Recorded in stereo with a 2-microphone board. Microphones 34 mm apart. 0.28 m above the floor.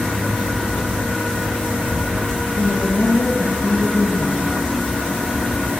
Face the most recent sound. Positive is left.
turn(degrees=65)  # may be behind; listen again after turning